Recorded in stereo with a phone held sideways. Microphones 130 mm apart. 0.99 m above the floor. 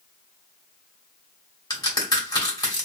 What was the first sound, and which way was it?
A crack, 30° left (ahead or behind).